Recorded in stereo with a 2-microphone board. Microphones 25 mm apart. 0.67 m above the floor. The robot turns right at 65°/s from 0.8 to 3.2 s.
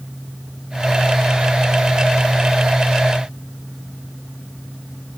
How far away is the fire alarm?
No fire alarm in this recording.